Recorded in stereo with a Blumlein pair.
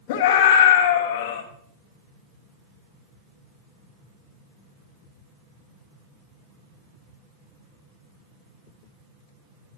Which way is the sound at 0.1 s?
50° left.